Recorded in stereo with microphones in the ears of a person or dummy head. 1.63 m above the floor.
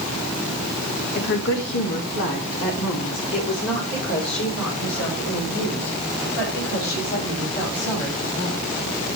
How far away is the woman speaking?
About 1.5 m.